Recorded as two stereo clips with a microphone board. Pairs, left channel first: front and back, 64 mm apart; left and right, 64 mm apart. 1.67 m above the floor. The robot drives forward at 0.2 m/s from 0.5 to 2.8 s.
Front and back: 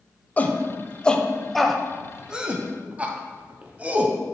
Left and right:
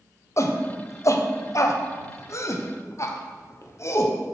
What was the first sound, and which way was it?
A shout, 60° left.